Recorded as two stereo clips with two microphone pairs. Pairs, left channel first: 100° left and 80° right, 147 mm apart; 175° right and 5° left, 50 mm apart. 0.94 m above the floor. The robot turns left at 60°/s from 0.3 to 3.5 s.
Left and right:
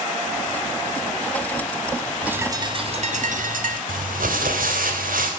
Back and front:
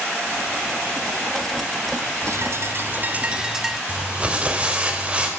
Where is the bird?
5° left, 1.6 m; by 3.8 s 75° right, 1.6 m.